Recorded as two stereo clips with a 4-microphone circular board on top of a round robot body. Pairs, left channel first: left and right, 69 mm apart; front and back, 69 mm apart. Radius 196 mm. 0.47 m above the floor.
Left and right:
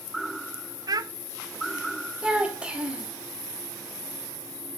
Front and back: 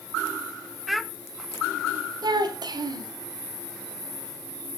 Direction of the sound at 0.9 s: 95° right.